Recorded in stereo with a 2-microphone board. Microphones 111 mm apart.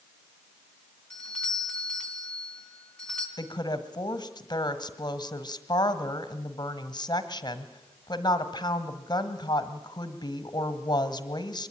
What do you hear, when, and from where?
1.1 s a doorbell: 10° left (ahead or behind), 4.5 m
3.4 s a woman speaking: 40° left (ahead or behind), 1.4 m